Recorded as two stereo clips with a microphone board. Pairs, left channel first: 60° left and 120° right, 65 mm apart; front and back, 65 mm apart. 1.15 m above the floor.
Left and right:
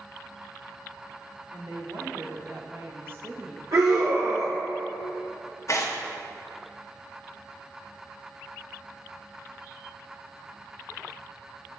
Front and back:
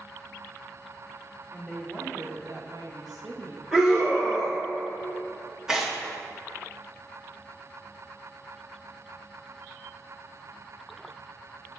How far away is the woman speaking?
About 2 m.